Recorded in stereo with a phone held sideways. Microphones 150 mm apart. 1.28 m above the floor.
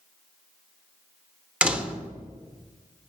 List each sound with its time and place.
1.6 s a door slam: 10° right (ahead or behind), 0.8 m